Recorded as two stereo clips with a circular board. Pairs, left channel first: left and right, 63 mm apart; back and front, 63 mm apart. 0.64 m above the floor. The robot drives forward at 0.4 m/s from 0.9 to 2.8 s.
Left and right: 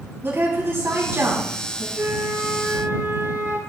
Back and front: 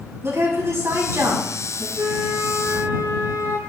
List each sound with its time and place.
0.2 s a woman speaking: 40° right, 4.5 m; by 1.9 s 45° right, 4 m
1.9 s a flute: 45° right, 4.5 m